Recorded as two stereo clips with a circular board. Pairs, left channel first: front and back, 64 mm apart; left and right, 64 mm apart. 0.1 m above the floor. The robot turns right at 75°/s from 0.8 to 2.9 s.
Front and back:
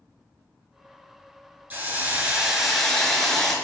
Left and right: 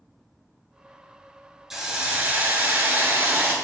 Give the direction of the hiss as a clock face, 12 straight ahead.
6 o'clock.